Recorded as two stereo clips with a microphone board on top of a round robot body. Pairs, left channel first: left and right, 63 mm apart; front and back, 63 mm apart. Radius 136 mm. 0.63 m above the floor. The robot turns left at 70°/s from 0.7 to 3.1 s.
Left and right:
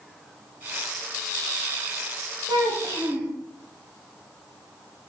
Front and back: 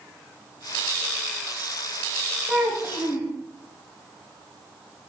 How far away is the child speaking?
About 1.6 m.